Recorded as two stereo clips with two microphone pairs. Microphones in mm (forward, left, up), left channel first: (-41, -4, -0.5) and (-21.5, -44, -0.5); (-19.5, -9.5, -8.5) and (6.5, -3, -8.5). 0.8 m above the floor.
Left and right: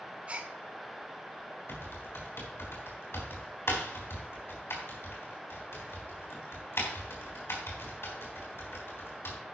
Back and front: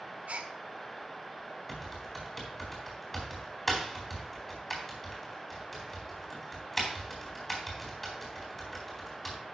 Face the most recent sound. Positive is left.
turn(degrees=110)